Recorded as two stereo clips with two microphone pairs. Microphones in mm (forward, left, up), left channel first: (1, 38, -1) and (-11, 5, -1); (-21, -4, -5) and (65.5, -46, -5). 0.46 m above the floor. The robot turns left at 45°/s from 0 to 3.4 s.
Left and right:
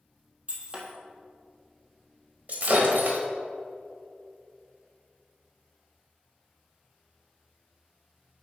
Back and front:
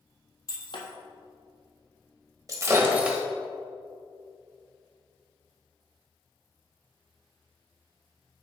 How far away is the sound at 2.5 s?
About 1.3 m.